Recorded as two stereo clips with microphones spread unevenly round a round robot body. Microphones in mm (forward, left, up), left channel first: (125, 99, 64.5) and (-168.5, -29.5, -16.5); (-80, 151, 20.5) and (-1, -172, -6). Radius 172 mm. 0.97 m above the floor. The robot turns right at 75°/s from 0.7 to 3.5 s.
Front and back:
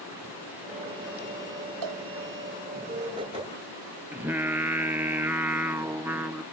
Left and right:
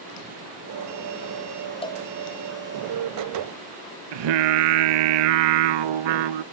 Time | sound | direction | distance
1.8 | a cowbell | 175° left | ?
4.1 | singing | 75° right | ?